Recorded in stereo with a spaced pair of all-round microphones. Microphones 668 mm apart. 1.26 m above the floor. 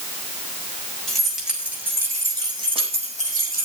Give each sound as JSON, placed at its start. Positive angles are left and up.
{"t": 1.1, "sound": "keys jangling", "side_deg": 0, "distance_m": 6.5}